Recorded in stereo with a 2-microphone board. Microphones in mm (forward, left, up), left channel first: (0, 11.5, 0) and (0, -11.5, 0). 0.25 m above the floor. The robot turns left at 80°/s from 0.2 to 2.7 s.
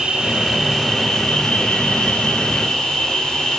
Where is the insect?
130° right, 7 m; by 3.6 s 30° left, 7 m.